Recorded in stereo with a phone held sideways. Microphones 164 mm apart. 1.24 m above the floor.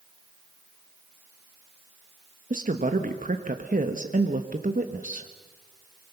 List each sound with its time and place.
2.5 s a woman speaking: 55° right (ahead or behind), 1.2 m